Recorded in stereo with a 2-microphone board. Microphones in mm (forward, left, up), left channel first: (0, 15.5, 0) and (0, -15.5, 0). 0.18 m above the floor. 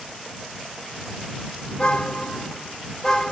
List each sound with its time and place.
1.7 s a car horn: 35° left (ahead or behind); by 3.3 s 15° left (ahead or behind)